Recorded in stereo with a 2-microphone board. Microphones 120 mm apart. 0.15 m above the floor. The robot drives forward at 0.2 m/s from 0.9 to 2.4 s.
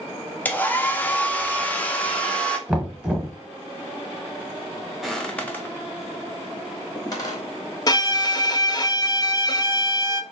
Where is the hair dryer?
15° left (ahead or behind), 0.6 m; by 2.6 s 10° left (ahead or behind), 0.8 m.